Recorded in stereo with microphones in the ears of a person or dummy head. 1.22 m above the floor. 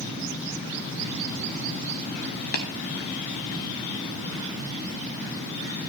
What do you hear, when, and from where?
2.5 s tapping: 50° left (ahead or behind), 1.0 m